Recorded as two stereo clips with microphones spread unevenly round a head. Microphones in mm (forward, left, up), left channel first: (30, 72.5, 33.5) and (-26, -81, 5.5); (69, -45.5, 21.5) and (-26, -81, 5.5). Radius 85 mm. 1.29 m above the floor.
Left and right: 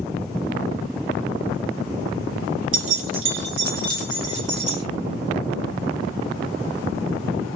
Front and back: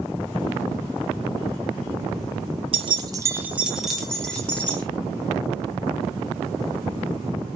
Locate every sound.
2.7 s keys jangling: 130° right, 0.7 m; by 4.8 s 55° right, 1.8 m